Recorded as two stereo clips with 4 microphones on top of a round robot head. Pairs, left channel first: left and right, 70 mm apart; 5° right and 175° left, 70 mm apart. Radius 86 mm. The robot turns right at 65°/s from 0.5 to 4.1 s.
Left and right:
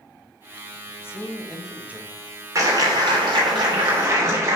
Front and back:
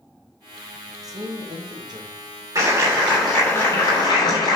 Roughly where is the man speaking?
Behind left.